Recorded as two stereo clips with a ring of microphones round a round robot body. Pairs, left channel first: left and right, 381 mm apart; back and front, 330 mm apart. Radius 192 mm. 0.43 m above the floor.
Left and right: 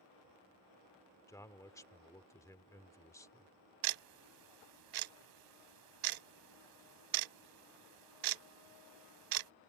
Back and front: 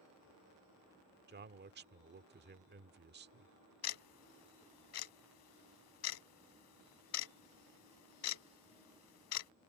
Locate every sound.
1.3 s a man speaking: 15° left
3.8 s ticking: 125° right